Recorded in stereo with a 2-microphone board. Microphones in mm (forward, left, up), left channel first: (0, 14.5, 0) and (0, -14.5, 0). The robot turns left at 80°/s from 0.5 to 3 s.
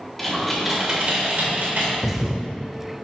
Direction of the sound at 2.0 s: 5° right.